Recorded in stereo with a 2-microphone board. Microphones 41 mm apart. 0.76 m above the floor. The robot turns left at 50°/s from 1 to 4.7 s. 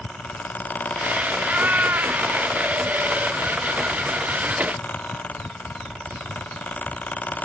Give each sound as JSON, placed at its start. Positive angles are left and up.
{"t": 1.4, "sound": "a cat meowing", "azimuth_deg": -30, "distance_m": 1.3}